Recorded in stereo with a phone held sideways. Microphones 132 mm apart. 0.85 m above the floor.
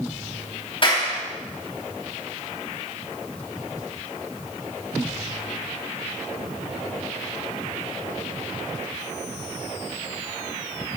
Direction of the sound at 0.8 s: 40° left (ahead or behind).